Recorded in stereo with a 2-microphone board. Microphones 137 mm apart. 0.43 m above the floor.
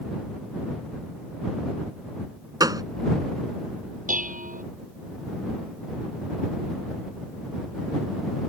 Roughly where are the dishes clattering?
Right.